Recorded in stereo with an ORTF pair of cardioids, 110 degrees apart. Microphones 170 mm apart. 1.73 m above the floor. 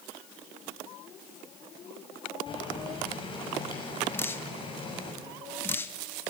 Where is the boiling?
30° left, 7 m.